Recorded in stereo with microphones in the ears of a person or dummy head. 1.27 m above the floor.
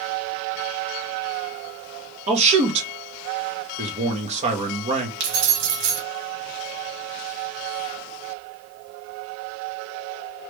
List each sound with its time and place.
2.3 s a man speaking: 35° right (ahead or behind), 1.0 m
5.2 s keys jangling: 60° right (ahead or behind), 1.3 m